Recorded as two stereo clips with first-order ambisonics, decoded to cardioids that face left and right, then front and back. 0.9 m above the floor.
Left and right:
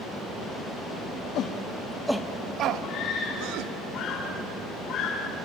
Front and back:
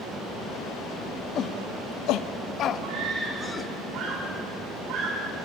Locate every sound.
1.4 s a shout: 50° left, 1.3 m; by 3.7 s 75° right, 2 m
2.8 s a scream: 140° left, 3.5 m